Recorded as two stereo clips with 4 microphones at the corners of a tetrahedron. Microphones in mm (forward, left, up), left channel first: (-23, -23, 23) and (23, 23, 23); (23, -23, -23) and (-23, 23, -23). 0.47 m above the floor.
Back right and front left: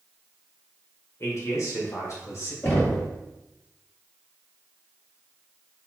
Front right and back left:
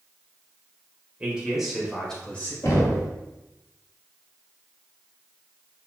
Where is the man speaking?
160° right, 1.7 m; by 2.5 s 105° right, 1.8 m.